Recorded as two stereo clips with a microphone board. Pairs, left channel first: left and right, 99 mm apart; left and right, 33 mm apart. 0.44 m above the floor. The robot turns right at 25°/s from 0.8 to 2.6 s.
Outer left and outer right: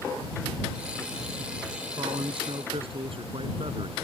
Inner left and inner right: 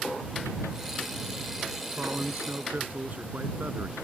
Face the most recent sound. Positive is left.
turn(degrees=-65)  # may be behind; listen again after turning